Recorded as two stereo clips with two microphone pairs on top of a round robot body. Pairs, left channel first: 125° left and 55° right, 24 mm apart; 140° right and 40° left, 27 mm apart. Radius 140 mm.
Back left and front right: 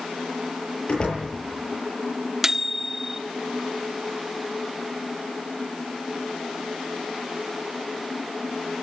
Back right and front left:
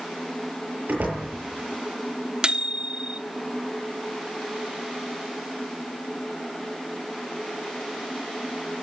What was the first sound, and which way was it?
A door slam, 70° left.